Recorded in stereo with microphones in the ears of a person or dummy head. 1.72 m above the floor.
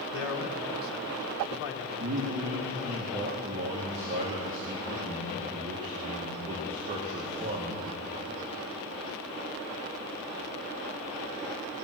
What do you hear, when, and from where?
0.1 s a man speaking: 70° left (ahead or behind), 1.5 m
2.0 s a man speaking: 35° right (ahead or behind), 1.7 m